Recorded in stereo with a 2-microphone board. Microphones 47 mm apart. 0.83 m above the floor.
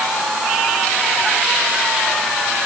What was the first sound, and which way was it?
Only background noise.